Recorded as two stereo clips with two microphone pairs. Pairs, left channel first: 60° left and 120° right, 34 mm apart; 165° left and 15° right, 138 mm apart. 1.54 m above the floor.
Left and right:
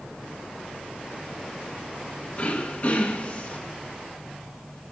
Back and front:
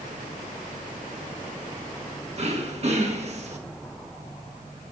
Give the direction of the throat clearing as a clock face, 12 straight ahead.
11 o'clock.